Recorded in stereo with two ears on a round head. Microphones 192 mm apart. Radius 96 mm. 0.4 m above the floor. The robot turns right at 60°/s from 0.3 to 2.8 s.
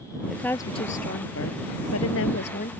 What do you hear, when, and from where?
0.3 s a woman speaking: straight ahead; by 2.7 s 145° left